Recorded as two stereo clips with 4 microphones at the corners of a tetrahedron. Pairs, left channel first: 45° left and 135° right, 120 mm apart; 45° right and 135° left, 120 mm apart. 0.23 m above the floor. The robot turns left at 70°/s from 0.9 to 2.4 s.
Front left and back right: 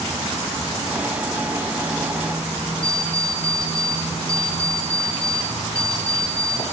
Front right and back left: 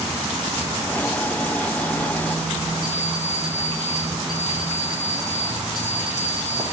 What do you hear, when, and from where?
2.8 s an alarm clock: 85° left, 5 m